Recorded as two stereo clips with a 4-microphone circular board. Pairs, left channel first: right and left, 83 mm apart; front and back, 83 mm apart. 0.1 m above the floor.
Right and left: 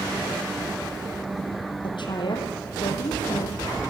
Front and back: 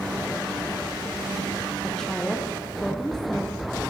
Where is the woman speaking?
80° right, 4.5 m.